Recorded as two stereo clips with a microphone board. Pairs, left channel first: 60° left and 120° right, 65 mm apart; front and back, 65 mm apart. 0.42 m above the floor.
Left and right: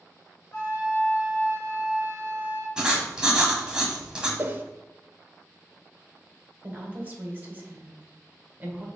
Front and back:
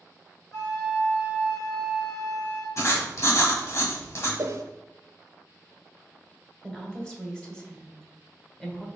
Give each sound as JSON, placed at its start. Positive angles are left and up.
{"t": 0.5, "sound": "a flute", "azimuth_deg": 25, "distance_m": 1.9}
{"t": 2.8, "sound": "writing", "azimuth_deg": -45, "distance_m": 1.0}
{"t": 4.4, "sound": "a whoosh", "azimuth_deg": -170, "distance_m": 0.5}
{"t": 6.6, "sound": "a woman speaking", "azimuth_deg": -75, "distance_m": 1.2}